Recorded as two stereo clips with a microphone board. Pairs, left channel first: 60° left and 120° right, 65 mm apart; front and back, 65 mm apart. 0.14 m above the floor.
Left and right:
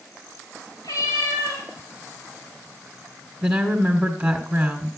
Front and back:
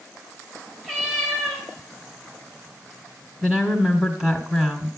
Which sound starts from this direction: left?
A cat meowing, at 0.8 s.